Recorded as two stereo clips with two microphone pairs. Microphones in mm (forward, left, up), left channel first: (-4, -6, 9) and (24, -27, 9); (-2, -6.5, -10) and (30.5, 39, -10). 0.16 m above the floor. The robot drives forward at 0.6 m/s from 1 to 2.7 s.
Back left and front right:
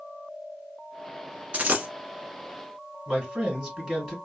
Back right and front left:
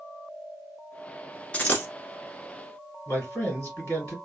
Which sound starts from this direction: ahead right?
A dropped coin, at 1.5 s.